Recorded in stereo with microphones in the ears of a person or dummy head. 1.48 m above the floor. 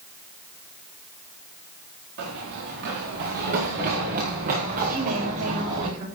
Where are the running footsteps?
60° right (ahead or behind), 5 m; by 5.9 s 35° right (ahead or behind), 5.5 m.